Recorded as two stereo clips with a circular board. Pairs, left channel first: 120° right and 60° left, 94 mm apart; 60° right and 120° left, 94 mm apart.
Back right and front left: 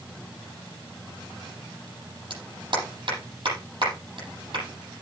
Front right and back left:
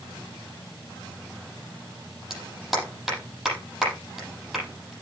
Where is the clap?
35° left, 7.5 m.